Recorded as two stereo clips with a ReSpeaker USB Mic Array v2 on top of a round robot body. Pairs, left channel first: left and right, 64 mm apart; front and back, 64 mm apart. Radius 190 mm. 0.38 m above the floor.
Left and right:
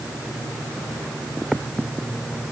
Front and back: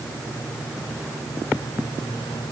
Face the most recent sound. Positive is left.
No sound to turn to.